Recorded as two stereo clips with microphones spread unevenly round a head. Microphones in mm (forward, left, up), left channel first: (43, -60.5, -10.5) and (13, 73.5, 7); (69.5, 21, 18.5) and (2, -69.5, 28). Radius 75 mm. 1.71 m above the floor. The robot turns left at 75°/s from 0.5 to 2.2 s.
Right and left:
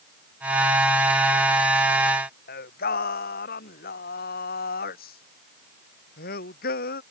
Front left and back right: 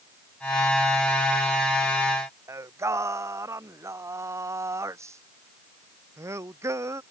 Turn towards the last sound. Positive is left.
turn(degrees=-65)